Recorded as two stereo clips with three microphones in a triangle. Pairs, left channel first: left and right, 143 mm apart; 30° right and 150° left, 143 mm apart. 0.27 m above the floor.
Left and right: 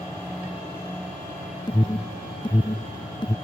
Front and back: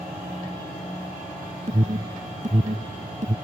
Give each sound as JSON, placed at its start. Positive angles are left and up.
{"t": 1.7, "sound": "an alarm", "azimuth_deg": 145}